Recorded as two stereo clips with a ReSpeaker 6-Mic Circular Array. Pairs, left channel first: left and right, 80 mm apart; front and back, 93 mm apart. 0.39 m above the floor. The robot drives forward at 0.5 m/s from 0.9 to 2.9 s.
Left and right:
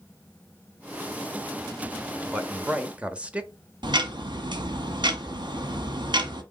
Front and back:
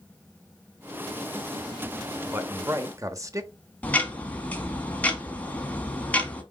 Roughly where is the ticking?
Right.